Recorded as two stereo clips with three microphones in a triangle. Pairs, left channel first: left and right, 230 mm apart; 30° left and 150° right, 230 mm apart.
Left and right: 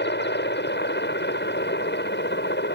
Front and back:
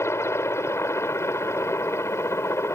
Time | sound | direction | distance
0.0 | a helicopter | 105° left | ?